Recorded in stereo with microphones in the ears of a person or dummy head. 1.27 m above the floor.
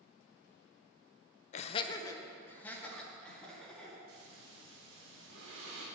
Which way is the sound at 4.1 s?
80° right.